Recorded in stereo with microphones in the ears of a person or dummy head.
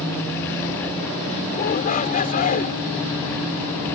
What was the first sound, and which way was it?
A shout, 45° left (ahead or behind).